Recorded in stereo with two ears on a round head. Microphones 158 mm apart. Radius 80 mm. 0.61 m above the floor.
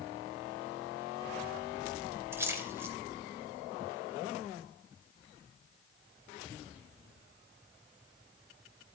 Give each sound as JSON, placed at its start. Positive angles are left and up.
{"t": 2.3, "sound": "a splash", "side_deg": -15, "distance_m": 2.0}